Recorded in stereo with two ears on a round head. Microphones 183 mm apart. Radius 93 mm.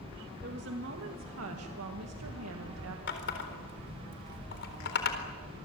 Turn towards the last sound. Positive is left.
turn(degrees=60)  # may be behind; listen again after turning